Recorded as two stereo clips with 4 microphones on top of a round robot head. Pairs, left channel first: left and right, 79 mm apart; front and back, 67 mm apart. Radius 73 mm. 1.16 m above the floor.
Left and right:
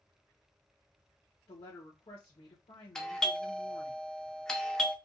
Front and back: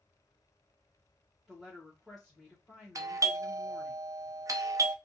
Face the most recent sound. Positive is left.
turn(degrees=170)